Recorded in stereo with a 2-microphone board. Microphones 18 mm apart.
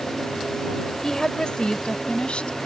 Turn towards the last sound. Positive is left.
turn(degrees=75)  # may be behind; listen again after turning